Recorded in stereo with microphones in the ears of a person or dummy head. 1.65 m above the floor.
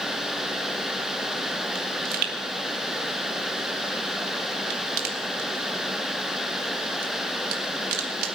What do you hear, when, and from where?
1.8 s a pop: 65° right (ahead or behind), 2 m